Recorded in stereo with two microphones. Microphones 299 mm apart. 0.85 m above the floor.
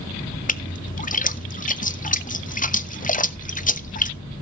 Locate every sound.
0.5 s a splash: 25° left (ahead or behind), 0.7 m